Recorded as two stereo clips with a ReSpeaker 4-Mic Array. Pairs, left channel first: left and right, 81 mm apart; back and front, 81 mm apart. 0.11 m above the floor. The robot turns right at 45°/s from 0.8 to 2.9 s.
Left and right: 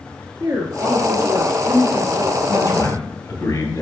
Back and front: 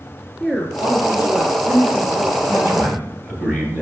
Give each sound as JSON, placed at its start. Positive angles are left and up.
{"t": 0.4, "sound": "a woman speaking", "azimuth_deg": -90, "distance_m": 1.5}
{"t": 2.5, "sound": "a man speaking", "azimuth_deg": 40, "distance_m": 2.0}